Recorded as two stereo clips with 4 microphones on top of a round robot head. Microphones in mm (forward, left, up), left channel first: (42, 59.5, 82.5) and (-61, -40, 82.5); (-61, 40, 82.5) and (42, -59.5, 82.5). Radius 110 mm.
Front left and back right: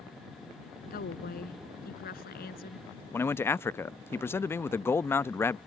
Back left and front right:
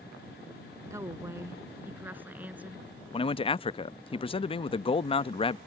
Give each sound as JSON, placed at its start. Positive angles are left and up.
{"t": 0.9, "sound": "a woman speaking", "azimuth_deg": 25}
{"t": 3.1, "sound": "a man speaking", "azimuth_deg": 110}